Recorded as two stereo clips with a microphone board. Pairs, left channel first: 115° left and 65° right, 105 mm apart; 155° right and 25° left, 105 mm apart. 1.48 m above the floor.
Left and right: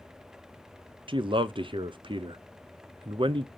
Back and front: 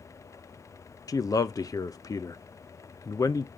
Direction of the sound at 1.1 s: 100° right.